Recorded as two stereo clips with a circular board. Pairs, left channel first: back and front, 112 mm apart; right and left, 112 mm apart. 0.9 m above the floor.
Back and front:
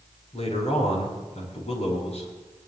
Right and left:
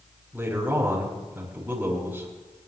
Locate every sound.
0.3 s a man speaking: 165° left, 6 m